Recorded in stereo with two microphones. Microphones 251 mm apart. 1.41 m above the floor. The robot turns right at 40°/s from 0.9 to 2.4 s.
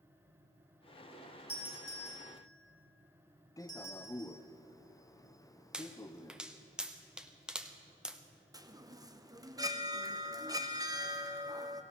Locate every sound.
1.5 s a doorbell: 60° left (ahead or behind), 5 m; by 4.3 s 80° left, 5 m
3.6 s a man speaking: 15° left (ahead or behind), 0.6 m
5.7 s a pop: 5° right (ahead or behind), 0.8 m
8.5 s a chime: 15° right (ahead or behind), 0.8 m